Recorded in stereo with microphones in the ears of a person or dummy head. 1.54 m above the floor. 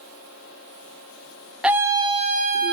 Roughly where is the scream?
Centre.